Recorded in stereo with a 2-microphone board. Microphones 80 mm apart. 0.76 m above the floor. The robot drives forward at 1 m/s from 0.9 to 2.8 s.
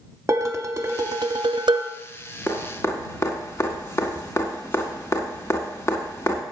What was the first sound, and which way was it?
Dishes clattering, 40° right (ahead or behind).